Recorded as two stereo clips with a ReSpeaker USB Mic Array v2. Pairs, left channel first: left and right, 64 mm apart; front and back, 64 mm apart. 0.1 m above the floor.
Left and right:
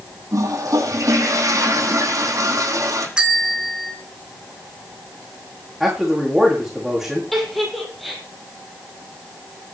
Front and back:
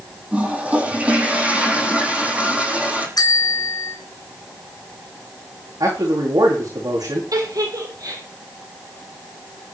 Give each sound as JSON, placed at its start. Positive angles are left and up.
{"t": 0.3, "sound": "a toilet flushing", "azimuth_deg": -110, "distance_m": 6.0}
{"t": 3.2, "sound": "a bell", "azimuth_deg": -15, "distance_m": 2.0}
{"t": 5.8, "sound": "a man speaking", "azimuth_deg": 180, "distance_m": 7.5}
{"t": 7.3, "sound": "a giggle", "azimuth_deg": 180, "distance_m": 4.5}